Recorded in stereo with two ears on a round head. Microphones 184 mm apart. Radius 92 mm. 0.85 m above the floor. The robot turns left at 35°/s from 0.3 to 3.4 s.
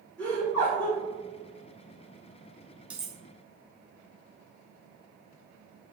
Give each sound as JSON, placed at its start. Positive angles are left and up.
{"t": 0.2, "sound": "laughter", "side_deg": 10, "distance_m": 1.6}
{"t": 2.9, "sound": "cutlery clinking", "side_deg": -5, "distance_m": 0.5}